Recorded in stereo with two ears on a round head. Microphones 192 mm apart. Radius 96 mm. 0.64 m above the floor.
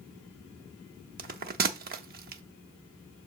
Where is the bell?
40° right (ahead or behind), 0.6 m.